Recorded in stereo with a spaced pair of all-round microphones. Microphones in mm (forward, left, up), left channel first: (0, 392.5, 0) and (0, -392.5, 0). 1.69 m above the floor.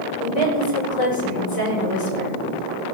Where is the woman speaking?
45° left (ahead or behind), 6 m.